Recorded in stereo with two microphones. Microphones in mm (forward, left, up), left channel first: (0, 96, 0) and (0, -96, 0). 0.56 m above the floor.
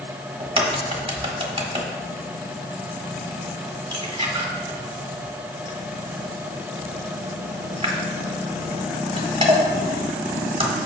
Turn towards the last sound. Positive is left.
turn(degrees=-30)  # may be behind; listen again after turning